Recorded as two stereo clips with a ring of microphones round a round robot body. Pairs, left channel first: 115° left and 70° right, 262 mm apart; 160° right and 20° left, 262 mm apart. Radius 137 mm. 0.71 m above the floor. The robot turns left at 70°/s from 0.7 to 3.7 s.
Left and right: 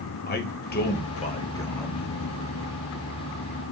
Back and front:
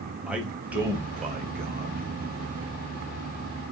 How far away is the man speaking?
About 1.0 m.